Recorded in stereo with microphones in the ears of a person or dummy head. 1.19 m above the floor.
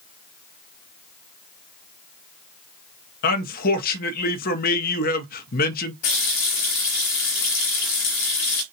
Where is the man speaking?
50° left (ahead or behind), 0.6 m.